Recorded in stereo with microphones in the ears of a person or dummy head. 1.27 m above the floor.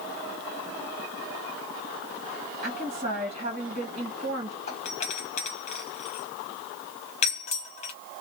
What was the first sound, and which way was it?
A woman speaking, 45° right (ahead or behind).